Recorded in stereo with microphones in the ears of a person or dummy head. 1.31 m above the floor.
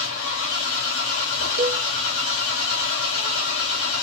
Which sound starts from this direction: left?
An engine running, at 0.0 s.